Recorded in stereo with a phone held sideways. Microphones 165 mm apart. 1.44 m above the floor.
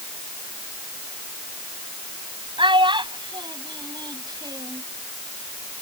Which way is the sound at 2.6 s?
30° right (ahead or behind).